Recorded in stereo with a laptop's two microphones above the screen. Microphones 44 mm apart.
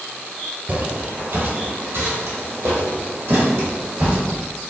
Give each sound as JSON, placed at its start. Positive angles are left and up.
{"t": 0.7, "sound": "footsteps", "side_deg": -40, "distance_m": 1.2}